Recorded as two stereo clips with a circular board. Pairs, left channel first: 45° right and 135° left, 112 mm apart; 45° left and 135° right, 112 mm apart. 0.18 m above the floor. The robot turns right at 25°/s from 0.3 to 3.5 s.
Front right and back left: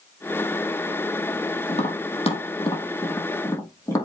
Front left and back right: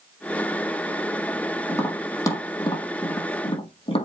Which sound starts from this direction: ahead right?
Tapping, at 1.7 s.